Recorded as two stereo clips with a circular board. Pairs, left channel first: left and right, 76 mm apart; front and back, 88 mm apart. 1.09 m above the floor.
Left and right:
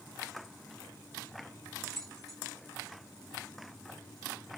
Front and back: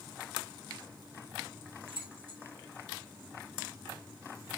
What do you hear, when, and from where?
1.9 s keys jangling: 175° left, 1.2 m